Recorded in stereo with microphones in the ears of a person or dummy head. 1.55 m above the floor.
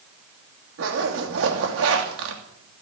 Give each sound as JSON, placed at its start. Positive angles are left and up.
{"t": 0.8, "sound": "a zipper", "side_deg": -80, "distance_m": 2.5}